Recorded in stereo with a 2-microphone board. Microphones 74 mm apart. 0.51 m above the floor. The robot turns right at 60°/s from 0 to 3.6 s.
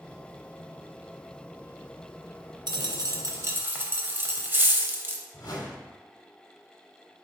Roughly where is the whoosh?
Left.